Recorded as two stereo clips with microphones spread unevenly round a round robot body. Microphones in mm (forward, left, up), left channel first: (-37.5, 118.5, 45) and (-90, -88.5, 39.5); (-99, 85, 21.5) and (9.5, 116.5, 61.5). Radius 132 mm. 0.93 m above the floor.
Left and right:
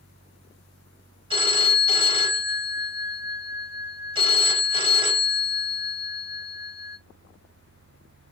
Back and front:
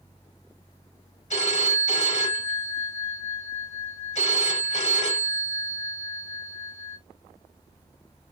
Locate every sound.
1.3 s a phone ringing: 170° right, 4.5 m